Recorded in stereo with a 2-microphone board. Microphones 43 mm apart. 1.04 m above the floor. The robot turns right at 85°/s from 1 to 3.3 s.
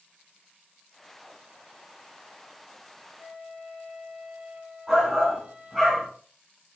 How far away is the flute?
About 1.7 m.